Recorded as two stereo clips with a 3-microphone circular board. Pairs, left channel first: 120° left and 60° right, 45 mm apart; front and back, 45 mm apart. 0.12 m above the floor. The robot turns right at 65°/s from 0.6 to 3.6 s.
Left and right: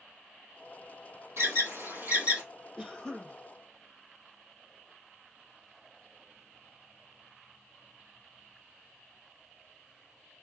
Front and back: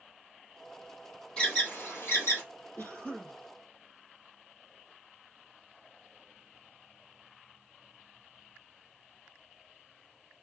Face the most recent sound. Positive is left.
turn(degrees=65)